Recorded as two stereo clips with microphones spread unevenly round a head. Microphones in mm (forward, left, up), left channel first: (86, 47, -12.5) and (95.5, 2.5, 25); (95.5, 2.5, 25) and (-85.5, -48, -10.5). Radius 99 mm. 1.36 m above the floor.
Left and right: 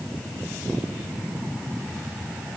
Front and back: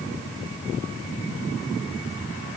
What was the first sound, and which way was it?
Only background noise.